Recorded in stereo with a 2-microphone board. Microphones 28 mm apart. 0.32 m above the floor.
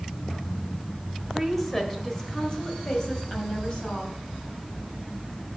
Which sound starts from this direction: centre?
A woman speaking, at 1.3 s.